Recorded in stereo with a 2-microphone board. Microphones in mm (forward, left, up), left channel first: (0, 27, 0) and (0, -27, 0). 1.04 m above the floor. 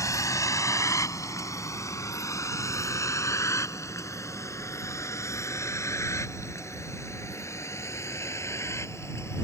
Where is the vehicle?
85° left; by 9.4 s 60° left (ahead or behind).